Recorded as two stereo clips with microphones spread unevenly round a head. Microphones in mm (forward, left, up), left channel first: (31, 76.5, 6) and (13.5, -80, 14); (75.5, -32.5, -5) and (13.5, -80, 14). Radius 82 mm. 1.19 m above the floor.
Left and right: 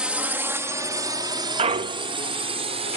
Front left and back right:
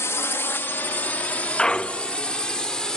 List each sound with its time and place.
0.0 s a drone: 15° right; by 3.0 s 45° right
1.6 s a clunk: 50° right